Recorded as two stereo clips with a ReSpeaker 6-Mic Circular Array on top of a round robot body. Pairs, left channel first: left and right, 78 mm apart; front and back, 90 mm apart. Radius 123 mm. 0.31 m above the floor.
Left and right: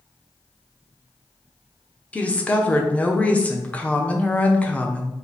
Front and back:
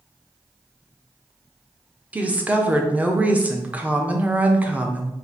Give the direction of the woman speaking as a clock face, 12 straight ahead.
8 o'clock.